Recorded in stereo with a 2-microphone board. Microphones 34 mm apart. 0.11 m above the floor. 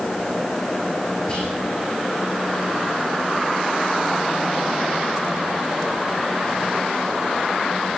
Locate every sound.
1.3 s whispering: 30° left (ahead or behind), 5 m